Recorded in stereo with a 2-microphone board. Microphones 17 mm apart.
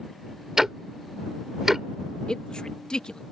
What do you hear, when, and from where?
0.6 s ticking: 25° right (ahead or behind)
2.3 s a man speaking: 60° left (ahead or behind)